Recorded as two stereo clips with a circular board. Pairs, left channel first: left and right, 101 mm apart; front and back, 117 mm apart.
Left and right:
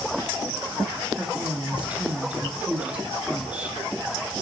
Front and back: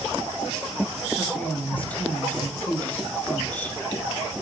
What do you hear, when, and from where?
1.1 s a woman speaking: 45° right, 1.1 m